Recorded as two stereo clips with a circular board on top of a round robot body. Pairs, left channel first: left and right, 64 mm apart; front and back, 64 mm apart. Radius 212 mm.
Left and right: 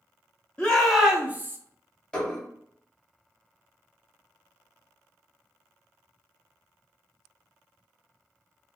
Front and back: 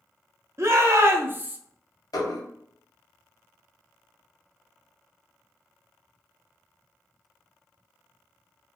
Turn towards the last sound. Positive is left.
turn(degrees=15)